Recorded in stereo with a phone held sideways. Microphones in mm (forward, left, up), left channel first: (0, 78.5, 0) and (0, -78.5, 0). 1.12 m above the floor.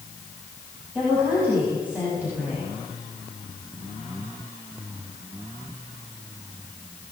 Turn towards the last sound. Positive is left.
turn(degrees=-10)  # may be behind; listen again after turning